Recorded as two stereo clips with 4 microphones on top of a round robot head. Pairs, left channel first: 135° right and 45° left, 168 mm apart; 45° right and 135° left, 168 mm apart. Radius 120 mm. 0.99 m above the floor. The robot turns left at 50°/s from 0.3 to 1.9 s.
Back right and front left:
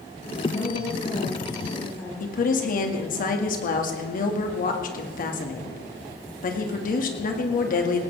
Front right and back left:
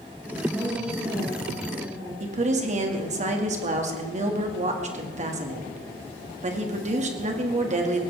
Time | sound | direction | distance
0.5 | a woman speaking | 140° right | 7 m
2.2 | a woman speaking | 175° right | 2 m